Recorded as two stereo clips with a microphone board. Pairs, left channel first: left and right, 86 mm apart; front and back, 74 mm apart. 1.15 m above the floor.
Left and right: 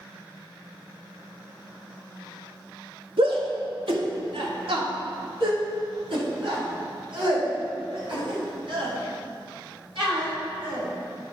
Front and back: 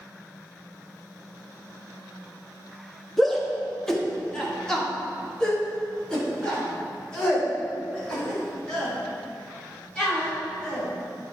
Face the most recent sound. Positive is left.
turn(degrees=-80)